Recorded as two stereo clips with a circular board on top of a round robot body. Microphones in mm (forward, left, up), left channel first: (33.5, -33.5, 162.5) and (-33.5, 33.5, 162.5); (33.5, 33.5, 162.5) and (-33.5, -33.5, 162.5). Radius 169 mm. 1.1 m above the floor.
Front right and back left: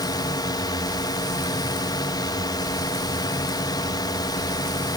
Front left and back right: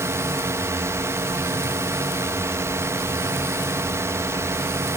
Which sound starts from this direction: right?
A drone, at 0.0 s.